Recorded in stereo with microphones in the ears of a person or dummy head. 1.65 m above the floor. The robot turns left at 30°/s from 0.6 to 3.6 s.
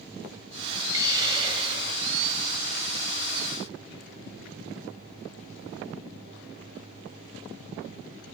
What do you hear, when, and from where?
0.9 s a hiss: 25° right, 0.6 m; by 2.4 s 70° right, 0.6 m